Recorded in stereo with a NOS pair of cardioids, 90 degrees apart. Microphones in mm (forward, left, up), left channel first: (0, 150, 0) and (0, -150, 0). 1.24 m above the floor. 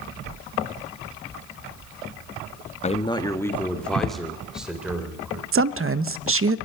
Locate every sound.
2.8 s a man speaking: 25° left, 1.4 m; by 5.4 s 5° right, 5 m
5.5 s a woman speaking: 45° right, 1.0 m